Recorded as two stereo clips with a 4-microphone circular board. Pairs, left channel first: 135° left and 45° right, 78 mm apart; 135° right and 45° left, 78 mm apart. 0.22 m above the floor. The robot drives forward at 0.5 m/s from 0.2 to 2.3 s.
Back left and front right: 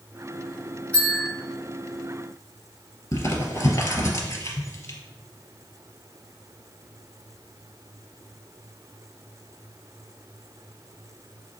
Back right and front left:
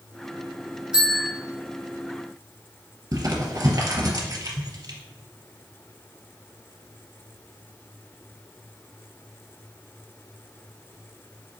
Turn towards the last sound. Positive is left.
turn(degrees=90)